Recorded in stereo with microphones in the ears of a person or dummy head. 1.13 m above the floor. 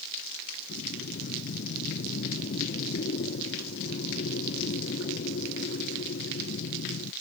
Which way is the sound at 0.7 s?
45° left (ahead or behind).